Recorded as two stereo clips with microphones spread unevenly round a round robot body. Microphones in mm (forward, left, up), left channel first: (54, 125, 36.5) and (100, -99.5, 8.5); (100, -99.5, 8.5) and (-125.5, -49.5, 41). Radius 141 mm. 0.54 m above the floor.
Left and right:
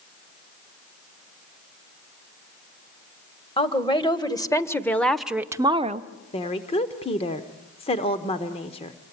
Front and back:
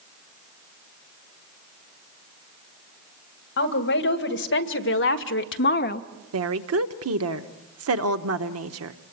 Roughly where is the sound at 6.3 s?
Behind.